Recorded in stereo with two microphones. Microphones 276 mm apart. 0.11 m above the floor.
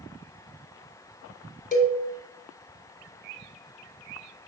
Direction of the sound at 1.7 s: 30° left (ahead or behind).